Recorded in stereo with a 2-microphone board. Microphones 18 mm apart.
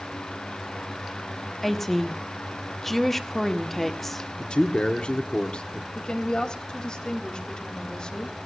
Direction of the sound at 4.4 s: 55° left (ahead or behind).